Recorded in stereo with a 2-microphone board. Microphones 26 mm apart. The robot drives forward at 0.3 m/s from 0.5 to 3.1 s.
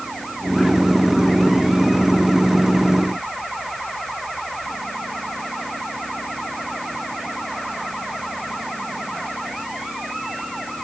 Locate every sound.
Only background noise.